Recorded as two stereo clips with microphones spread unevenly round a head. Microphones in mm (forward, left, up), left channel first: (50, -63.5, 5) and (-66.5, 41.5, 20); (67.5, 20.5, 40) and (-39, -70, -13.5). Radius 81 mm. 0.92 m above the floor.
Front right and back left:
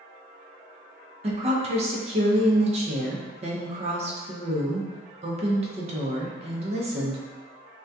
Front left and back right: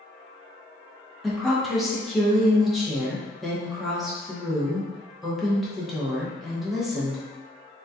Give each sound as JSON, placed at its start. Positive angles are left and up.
{"t": 1.2, "sound": "a woman speaking", "azimuth_deg": 165, "distance_m": 0.6}